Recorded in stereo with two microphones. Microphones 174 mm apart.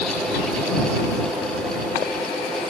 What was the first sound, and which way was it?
Only background noise.